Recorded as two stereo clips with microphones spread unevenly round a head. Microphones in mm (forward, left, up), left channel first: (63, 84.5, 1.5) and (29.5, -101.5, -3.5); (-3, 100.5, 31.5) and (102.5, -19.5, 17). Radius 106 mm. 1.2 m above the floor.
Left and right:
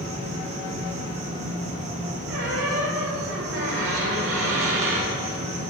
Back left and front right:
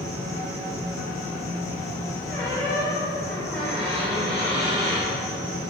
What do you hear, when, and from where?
0.0 s an insect: 150° right, 2 m
2.3 s a squeak: 140° right, 3 m